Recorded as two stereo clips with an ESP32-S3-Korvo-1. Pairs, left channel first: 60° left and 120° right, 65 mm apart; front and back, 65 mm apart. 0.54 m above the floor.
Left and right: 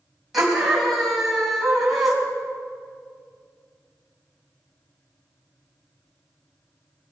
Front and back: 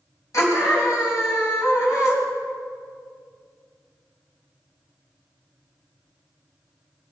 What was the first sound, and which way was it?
A scream, 30° right.